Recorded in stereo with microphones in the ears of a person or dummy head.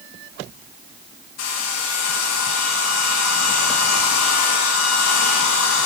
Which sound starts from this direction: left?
A hair dryer, at 1.4 s.